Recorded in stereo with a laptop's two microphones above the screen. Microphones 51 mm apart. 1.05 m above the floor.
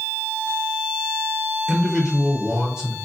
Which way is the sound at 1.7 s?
20° right (ahead or behind).